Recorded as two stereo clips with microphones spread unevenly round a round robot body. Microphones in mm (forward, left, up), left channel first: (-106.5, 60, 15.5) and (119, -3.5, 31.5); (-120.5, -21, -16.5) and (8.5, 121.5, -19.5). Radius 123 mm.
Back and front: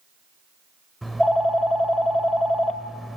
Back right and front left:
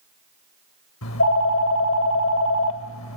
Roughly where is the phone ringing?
Right.